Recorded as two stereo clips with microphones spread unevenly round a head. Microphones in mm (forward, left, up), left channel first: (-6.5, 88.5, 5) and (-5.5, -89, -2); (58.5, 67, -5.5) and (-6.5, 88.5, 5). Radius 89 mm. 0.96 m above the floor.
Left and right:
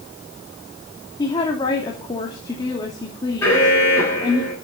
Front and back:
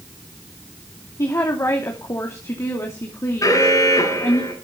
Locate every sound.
1.2 s a woman speaking: 25° left, 2.5 m
3.4 s an alarm: 10° left, 6.5 m